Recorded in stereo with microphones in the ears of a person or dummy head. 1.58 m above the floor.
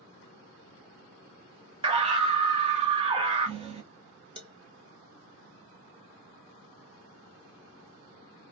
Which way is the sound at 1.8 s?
25° right (ahead or behind).